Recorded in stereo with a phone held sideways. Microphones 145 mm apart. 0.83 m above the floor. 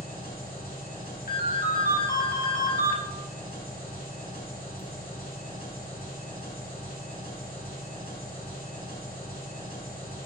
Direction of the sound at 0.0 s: 85° left.